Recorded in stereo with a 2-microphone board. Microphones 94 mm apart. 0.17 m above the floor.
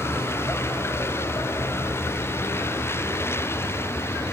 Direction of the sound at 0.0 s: 30° left (ahead or behind).